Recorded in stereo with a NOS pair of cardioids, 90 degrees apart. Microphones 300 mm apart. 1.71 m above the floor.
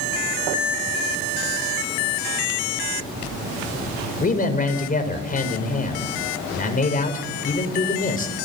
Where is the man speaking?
30° left, 5.5 m.